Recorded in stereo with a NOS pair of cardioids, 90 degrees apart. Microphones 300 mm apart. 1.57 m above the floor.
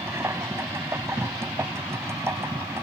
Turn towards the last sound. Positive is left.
turn(degrees=-10)